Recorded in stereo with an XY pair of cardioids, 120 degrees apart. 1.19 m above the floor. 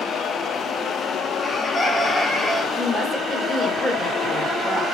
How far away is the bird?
About 3 m.